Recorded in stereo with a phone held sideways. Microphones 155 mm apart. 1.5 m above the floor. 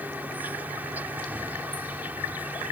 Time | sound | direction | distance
0.0 | an insect | 10° right (ahead or behind) | ?